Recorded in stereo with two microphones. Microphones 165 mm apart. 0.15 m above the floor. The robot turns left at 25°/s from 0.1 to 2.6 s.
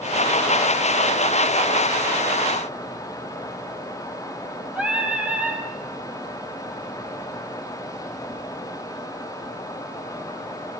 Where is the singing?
5° right (ahead or behind), 4.5 m.